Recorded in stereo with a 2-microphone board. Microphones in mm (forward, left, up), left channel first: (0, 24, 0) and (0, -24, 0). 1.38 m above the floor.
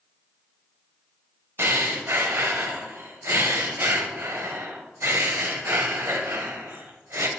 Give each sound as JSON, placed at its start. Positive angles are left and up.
{"t": 1.6, "sound": "breathing", "side_deg": -55, "distance_m": 0.8}